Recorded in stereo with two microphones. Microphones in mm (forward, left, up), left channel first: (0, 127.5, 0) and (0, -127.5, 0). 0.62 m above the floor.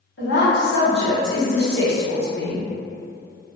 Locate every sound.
0.2 s a woman speaking: 50° left (ahead or behind), 1.0 m